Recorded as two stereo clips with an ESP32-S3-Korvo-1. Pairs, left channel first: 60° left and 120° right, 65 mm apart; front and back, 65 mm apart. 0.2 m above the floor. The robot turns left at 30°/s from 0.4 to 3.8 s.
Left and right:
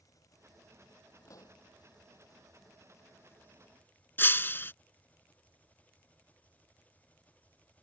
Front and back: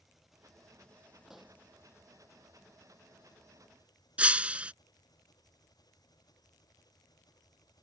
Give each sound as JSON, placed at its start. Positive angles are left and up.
{"t": 0.0, "sound": "an engine running", "azimuth_deg": 95}
{"t": 1.3, "sound": "a pop", "azimuth_deg": 95}
{"t": 4.2, "sound": "breaking glass", "azimuth_deg": 115}